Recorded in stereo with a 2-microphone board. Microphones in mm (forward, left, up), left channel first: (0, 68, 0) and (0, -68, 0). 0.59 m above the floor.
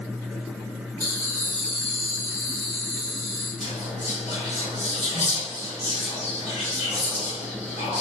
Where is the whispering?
55° left (ahead or behind), 1.1 m.